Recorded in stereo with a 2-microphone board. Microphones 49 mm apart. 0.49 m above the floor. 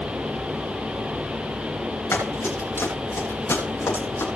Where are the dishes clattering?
I don't hear dishes clattering.